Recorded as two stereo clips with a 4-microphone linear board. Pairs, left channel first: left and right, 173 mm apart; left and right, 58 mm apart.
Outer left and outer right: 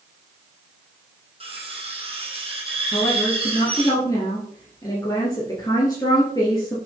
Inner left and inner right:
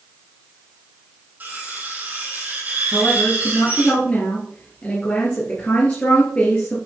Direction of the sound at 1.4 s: 30° right (ahead or behind).